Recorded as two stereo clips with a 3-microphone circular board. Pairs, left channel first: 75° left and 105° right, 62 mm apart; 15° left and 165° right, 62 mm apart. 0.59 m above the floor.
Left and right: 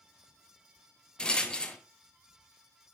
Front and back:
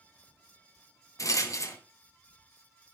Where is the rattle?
Straight ahead, 0.7 m.